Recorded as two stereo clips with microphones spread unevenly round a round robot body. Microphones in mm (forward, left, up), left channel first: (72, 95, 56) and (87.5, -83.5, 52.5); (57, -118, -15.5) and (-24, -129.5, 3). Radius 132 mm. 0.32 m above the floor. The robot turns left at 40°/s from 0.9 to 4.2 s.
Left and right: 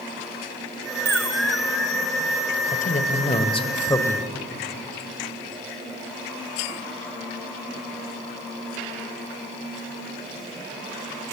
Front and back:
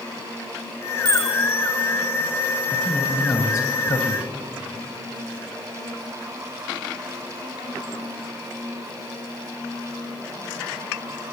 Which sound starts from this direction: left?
A man speaking, at 2.7 s.